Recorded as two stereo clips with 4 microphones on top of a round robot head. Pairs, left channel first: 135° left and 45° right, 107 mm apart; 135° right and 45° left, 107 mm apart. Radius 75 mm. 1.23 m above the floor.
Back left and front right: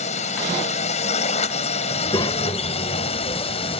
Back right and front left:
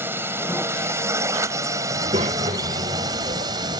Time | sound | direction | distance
0.0 | a drone | 115° left | ?
1.9 | a child speaking | 80° left | ?